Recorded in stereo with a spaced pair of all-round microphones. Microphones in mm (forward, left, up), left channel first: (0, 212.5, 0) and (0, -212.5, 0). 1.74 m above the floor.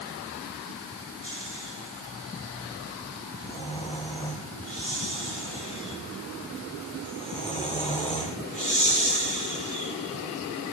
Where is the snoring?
15° left (ahead or behind), 4.5 m.